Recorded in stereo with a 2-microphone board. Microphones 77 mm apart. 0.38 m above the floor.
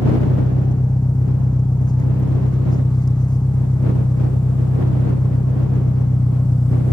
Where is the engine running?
65° left (ahead or behind).